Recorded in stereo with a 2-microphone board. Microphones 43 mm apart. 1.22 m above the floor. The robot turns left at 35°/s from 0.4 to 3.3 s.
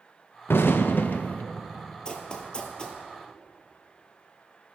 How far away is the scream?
No scream in this recording.